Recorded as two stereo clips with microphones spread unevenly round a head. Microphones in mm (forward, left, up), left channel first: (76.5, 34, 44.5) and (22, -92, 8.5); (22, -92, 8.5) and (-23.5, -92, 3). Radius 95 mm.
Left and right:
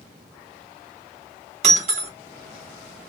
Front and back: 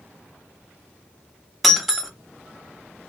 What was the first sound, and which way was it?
Breaking glass, 80° right.